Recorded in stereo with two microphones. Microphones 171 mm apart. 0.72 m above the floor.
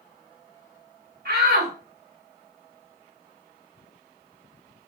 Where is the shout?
75° right (ahead or behind), 4 m.